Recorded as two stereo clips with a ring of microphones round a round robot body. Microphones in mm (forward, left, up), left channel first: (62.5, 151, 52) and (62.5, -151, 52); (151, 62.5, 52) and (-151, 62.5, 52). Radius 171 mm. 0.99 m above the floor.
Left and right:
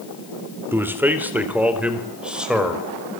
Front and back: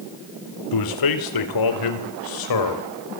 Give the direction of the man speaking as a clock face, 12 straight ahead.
12 o'clock.